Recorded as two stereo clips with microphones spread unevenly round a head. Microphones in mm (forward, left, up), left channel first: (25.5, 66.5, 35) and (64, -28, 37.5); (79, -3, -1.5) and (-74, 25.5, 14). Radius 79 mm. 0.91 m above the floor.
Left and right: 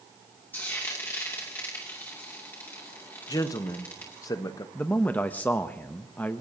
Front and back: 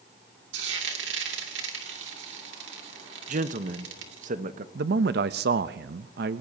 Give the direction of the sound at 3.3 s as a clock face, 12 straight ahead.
7 o'clock.